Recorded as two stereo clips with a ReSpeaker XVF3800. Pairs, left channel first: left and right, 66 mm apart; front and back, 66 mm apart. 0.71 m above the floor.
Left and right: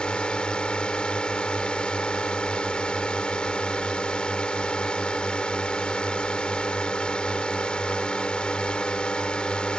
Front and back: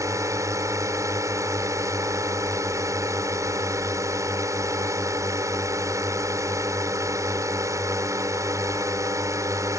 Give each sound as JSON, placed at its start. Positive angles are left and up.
{"t": 0.0, "sound": "a drone", "azimuth_deg": 165}